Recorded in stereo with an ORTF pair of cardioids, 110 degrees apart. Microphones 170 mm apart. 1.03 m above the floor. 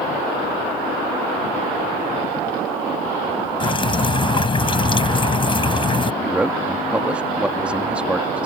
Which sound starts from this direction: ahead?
A man speaking, at 6.2 s.